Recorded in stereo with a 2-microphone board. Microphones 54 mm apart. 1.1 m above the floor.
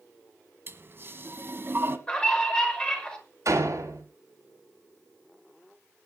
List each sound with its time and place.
0.7 s a toilet flushing: 45° right (ahead or behind), 1.6 m
2.1 s a scream: 20° left (ahead or behind), 5.5 m
3.5 s a door slam: 65° right (ahead or behind), 5.5 m